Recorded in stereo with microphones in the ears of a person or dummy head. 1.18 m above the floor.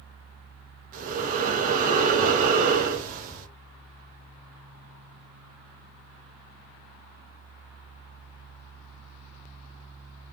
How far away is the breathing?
About 0.6 m.